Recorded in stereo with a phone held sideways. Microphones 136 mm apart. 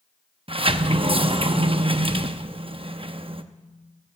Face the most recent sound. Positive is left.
turn(degrees=-45)  # may be behind; listen again after turning